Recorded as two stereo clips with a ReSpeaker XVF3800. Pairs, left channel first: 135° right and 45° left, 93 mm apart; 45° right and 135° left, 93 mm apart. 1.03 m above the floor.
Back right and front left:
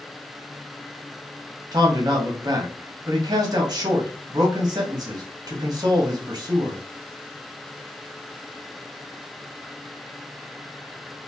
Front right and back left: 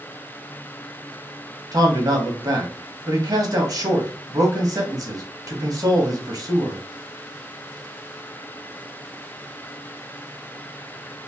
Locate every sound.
1.7 s a man speaking: 90° left, 0.9 m